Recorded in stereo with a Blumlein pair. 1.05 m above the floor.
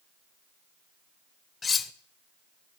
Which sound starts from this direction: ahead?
Cutlery clinking, at 1.6 s.